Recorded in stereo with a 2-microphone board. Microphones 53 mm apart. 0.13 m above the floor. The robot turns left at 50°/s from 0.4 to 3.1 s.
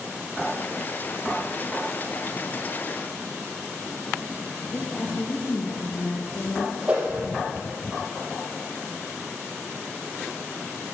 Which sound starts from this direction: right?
A whoosh, at 6.9 s.